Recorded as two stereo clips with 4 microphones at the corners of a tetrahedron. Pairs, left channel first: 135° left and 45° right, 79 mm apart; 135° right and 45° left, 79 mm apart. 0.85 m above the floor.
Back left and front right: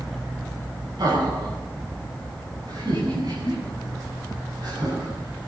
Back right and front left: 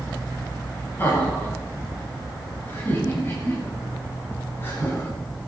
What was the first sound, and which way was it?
Laughter, 70° right.